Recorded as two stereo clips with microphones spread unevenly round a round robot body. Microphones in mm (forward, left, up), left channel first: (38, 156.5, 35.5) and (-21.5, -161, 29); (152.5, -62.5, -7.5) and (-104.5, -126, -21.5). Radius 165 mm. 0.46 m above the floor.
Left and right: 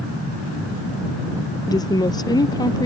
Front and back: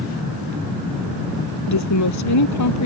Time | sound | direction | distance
1.7 | a woman speaking | straight ahead | ?